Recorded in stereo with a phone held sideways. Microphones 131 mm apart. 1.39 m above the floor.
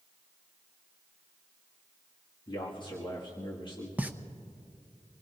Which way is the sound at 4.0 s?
15° right (ahead or behind).